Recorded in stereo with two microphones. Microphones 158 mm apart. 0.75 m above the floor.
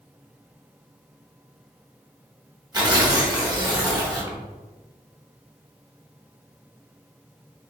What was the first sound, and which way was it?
Tearing paper, 25° right (ahead or behind).